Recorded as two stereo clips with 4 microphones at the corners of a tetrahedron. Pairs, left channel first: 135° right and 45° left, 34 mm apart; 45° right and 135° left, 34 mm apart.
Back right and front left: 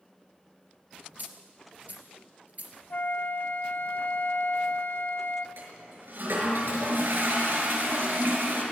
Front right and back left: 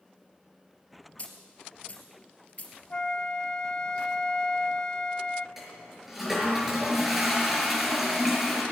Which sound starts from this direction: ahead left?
A toilet flushing, at 5.6 s.